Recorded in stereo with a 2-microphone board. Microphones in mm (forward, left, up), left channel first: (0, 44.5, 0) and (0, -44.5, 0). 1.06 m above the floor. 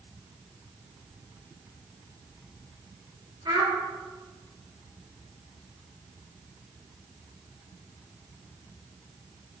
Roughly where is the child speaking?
Right.